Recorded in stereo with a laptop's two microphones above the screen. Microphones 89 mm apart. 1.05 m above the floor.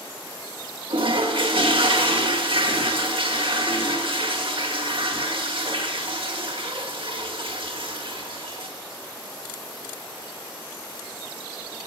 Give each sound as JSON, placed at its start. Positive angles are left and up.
{"t": 0.9, "sound": "a toilet flushing", "side_deg": -80, "distance_m": 2.0}